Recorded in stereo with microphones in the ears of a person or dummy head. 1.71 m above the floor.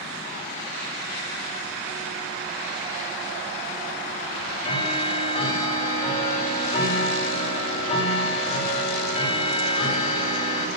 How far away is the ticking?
About 5.5 m.